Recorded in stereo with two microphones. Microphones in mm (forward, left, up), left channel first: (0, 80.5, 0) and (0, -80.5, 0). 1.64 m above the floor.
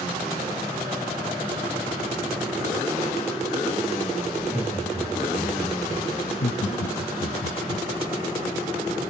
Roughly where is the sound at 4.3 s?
Right.